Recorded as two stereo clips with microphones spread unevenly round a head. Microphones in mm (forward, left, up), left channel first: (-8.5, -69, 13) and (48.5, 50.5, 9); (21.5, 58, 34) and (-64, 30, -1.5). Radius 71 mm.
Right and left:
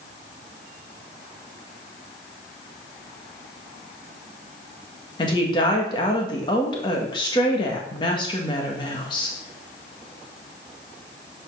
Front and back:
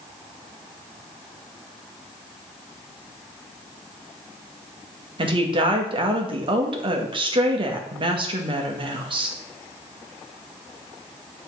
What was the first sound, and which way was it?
A woman speaking, 175° right.